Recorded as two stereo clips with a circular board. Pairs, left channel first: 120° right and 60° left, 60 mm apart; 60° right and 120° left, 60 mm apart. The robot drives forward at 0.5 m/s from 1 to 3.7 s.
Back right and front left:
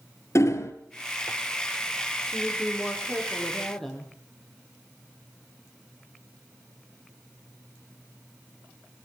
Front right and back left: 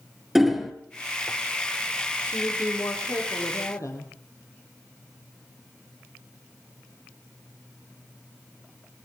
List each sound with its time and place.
0.3 s hammering: 150° right, 2.5 m
2.3 s a woman speaking: 35° right, 9.5 m